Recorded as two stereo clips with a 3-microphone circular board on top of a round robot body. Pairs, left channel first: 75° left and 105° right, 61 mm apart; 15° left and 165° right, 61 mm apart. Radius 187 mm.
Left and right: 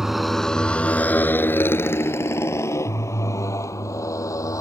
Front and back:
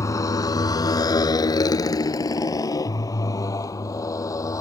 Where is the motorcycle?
20° right; by 4.6 s 45° left.